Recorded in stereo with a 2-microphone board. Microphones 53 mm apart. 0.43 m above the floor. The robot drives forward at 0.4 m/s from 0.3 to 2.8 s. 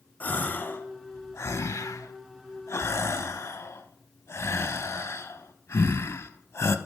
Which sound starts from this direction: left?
A gasp, at 0.2 s.